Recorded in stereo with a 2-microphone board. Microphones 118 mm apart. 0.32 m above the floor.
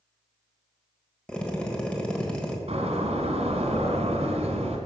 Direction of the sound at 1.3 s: 10° left (ahead or behind).